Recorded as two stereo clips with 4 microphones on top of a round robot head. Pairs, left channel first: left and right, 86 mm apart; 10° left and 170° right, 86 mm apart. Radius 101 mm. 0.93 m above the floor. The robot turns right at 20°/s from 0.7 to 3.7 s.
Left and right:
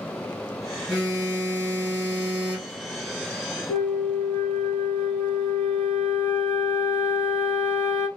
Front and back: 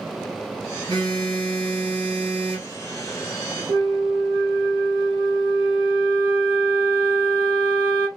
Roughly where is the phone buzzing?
Behind left.